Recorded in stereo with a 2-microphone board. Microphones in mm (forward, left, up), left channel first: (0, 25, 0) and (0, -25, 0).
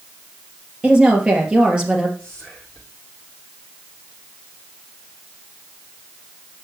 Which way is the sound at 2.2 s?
10° left (ahead or behind).